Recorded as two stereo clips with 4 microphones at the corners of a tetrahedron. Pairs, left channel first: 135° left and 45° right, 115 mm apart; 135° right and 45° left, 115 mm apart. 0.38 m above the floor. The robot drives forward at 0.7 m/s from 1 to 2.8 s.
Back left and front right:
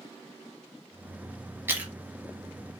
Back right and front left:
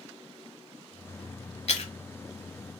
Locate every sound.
1.7 s chewing: 115° right, 0.9 m; by 1.9 s 125° right, 1.0 m